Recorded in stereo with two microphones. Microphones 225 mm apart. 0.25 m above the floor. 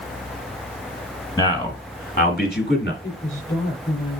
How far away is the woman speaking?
About 6.5 m.